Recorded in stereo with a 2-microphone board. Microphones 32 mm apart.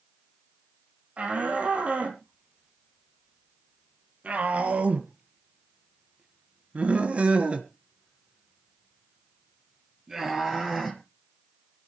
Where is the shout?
45° right (ahead or behind), 4 m; by 11.0 s 10° right (ahead or behind), 2.5 m.